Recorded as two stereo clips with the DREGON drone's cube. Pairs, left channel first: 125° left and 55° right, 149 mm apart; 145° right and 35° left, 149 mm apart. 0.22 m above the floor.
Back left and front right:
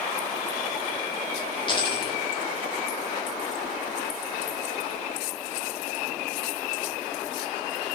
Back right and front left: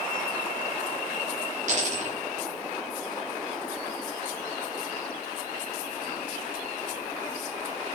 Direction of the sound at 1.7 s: 70° left.